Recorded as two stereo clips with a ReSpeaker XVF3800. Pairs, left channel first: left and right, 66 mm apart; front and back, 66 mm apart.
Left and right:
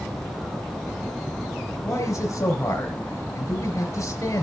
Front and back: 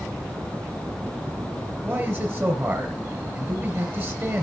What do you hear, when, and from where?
1.9 s a man speaking: 130° left, 4 m